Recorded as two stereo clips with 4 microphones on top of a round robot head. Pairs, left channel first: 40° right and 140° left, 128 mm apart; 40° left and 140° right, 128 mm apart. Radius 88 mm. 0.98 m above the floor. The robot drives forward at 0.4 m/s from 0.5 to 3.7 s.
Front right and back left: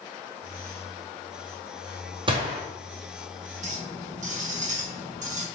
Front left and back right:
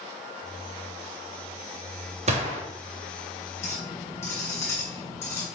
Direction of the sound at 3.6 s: 110° left.